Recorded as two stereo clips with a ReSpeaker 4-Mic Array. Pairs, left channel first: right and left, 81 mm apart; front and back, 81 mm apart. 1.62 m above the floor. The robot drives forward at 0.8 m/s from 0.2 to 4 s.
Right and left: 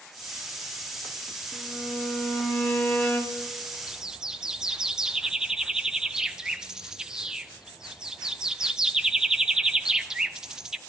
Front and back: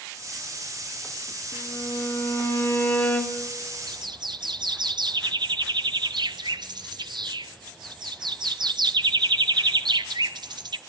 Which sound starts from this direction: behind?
A bird, at 3.9 s.